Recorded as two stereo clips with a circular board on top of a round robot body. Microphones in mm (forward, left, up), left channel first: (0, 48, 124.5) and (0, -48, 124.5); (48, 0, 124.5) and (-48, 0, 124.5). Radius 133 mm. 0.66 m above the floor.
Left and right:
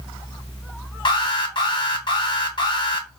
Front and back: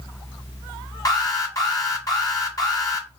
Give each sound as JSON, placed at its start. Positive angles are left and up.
{"t": 1.1, "sound": "an alarm", "azimuth_deg": 55, "distance_m": 1.2}